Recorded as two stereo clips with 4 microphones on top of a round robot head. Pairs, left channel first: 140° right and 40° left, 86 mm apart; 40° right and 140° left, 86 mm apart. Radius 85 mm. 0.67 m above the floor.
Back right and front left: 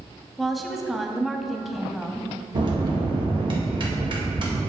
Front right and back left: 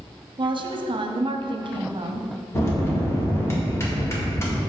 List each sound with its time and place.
0.4 s a woman speaking: 130° left, 0.9 m
2.5 s a bell: 15° left, 1.8 m